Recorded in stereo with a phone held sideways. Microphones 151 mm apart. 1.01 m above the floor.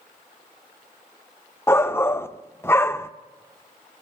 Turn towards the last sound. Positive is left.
turn(degrees=15)  # may be behind; listen again after turning